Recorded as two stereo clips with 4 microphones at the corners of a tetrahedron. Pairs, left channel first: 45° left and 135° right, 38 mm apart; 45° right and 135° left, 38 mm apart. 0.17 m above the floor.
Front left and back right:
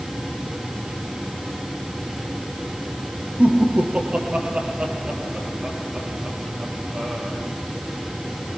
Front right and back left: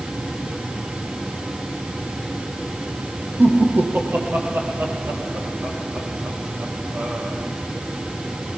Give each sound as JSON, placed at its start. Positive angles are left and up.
{"t": 3.4, "sound": "laughter", "azimuth_deg": 165, "distance_m": 6.0}